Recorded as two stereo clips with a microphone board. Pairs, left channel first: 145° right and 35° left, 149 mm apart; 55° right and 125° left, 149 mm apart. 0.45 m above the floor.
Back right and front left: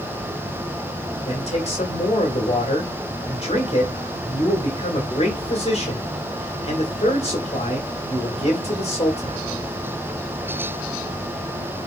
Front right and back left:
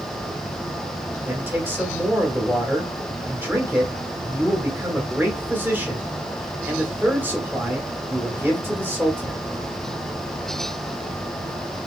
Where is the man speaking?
165° right, 1.9 m.